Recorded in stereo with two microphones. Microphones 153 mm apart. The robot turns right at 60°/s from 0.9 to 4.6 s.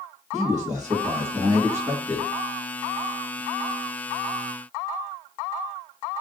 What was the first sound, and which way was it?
A man speaking, 75° right.